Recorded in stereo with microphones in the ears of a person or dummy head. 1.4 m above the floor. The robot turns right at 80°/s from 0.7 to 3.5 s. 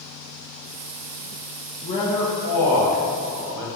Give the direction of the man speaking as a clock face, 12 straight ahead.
7 o'clock.